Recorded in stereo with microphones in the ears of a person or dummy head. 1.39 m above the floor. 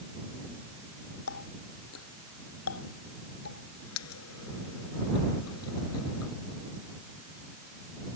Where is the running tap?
85° left.